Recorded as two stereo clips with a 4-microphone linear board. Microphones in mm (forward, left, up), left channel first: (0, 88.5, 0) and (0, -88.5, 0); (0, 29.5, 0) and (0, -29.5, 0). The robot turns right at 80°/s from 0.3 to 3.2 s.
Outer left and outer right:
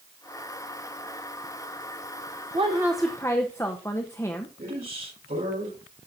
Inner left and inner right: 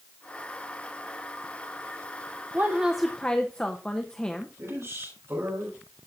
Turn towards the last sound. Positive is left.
turn(degrees=-60)  # may be behind; listen again after turning